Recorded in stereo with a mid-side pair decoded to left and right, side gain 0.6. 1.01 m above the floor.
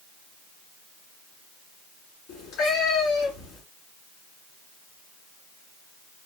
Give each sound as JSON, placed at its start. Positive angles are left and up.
{"t": 2.3, "sound": "a cat meowing", "azimuth_deg": 60, "distance_m": 2.5}